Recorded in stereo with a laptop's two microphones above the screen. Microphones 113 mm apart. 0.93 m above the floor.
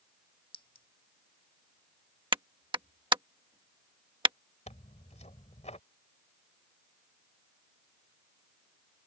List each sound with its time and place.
0.5 s a clink: 45° left (ahead or behind)
2.3 s a clap: 45° right (ahead or behind)
4.7 s tearing paper: 85° left